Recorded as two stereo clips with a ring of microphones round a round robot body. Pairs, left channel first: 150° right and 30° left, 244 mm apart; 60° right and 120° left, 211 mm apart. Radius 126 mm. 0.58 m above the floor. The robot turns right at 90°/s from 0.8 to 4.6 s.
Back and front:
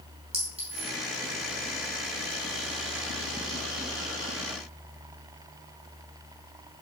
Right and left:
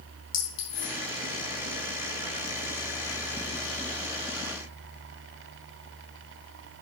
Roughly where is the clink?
Ahead right.